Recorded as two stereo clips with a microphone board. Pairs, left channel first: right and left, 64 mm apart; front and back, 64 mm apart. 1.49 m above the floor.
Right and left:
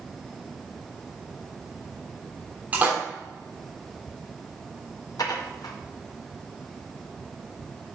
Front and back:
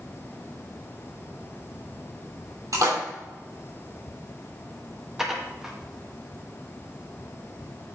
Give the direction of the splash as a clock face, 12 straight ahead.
7 o'clock.